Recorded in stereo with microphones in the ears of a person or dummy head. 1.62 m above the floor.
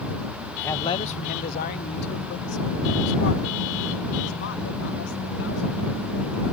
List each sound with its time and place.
0.6 s a man speaking: 5° left (ahead or behind); by 6.4 s 75° left (ahead or behind)